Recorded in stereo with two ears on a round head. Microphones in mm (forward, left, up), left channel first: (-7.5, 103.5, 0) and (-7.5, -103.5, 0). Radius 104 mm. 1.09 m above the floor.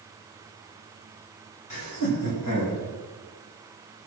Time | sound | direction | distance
1.7 | laughter | 80° left | 6 m